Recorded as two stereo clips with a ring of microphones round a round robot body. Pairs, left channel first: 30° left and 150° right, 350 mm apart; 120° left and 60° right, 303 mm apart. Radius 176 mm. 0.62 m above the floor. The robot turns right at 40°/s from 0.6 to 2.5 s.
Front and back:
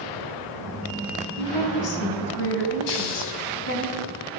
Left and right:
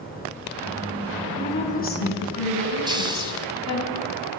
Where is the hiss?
15° left, 3 m.